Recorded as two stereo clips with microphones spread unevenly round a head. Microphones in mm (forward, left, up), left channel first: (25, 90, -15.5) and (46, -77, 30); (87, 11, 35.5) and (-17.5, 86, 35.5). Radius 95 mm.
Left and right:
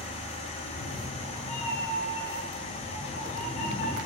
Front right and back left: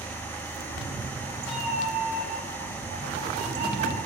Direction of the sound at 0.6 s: 120° left.